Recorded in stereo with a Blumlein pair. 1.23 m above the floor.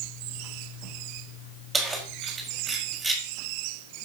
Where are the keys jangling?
10° right, 4.5 m.